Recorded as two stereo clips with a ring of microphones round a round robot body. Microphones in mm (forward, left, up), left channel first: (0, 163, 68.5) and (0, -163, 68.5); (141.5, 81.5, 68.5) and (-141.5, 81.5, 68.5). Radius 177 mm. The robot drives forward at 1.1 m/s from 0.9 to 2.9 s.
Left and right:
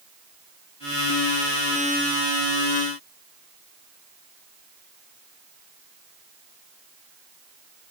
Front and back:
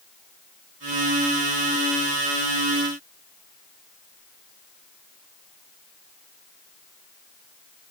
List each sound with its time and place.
Only background noise.